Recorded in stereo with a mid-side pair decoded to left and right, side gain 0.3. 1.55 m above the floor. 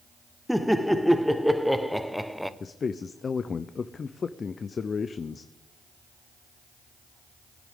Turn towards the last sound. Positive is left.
turn(degrees=55)